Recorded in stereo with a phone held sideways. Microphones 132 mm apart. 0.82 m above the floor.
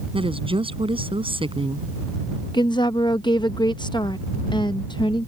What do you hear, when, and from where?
0.1 s a woman speaking: 40° right (ahead or behind)
2.5 s a woman speaking: 35° left (ahead or behind)